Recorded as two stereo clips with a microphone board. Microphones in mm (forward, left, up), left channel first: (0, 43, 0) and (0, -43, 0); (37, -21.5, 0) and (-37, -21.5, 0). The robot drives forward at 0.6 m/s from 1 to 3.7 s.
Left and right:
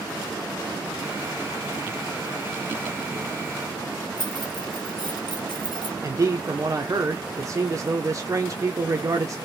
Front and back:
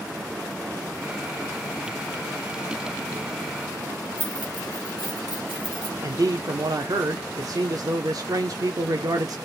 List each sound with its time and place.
4.2 s keys jangling: 105° left, 1.3 m
6.0 s a man speaking: 140° right, 0.8 m